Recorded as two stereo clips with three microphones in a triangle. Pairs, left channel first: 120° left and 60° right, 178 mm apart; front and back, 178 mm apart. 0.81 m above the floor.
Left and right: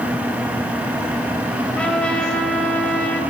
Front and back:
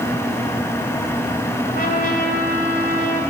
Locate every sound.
1.7 s a trumpet: 35° left, 2.5 m